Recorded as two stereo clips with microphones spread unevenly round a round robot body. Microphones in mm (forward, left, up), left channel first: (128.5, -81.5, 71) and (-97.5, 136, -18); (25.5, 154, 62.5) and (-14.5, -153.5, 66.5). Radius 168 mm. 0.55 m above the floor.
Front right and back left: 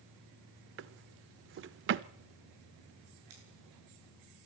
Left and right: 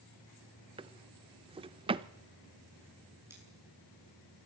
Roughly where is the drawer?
Behind.